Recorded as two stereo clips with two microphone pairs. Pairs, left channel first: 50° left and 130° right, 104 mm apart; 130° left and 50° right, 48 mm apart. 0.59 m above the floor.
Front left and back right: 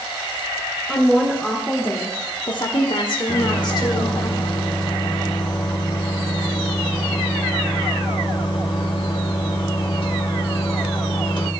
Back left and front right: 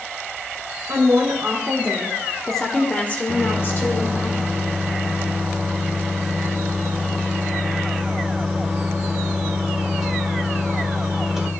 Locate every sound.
0.9 s a woman speaking: 35° right, 2 m; by 4.3 s 95° left, 2.5 m
3.3 s a microwave: 30° left, 1.7 m